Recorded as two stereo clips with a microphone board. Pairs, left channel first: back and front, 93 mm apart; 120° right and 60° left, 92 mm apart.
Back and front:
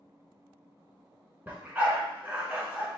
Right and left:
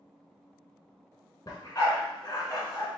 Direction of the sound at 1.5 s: 70° right.